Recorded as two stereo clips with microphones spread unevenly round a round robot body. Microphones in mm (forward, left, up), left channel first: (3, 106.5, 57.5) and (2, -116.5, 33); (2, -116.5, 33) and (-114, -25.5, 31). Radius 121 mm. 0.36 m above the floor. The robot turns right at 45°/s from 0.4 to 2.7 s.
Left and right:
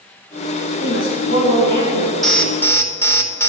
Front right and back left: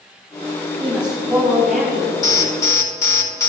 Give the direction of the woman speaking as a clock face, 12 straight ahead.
10 o'clock.